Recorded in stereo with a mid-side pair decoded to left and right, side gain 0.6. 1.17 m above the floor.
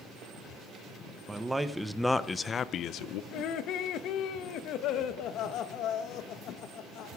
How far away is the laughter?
About 0.9 m.